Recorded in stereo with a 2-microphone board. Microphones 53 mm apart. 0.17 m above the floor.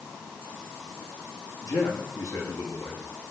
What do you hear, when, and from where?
1.6 s a man speaking: 80° left, 7 m